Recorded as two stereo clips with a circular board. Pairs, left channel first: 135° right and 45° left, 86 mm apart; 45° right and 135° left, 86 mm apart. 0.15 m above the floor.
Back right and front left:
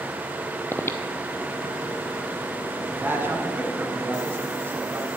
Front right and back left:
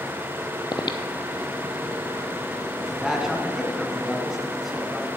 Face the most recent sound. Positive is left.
turn(degrees=55)